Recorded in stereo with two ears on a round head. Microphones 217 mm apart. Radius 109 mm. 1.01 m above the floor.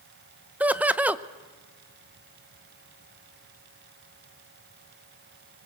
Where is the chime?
I don't hear a chime.